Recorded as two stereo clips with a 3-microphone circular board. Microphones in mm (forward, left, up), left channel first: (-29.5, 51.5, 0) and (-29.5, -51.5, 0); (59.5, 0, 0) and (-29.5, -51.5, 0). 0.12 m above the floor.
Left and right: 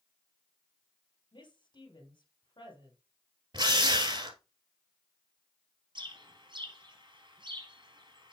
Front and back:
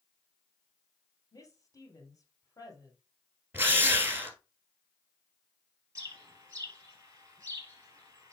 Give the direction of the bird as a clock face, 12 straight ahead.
3 o'clock.